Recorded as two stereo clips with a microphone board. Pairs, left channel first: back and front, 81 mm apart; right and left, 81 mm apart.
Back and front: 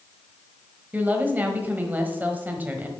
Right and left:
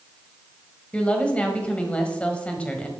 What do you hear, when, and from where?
0.9 s a woman speaking: 35° right, 1.3 m